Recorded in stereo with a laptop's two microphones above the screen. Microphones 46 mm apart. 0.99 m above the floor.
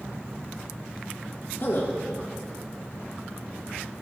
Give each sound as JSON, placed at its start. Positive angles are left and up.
{"t": 1.6, "sound": "a man speaking", "side_deg": 60, "distance_m": 1.3}